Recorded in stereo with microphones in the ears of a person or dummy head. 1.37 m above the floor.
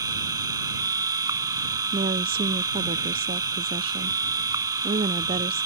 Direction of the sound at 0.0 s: 20° right (ahead or behind).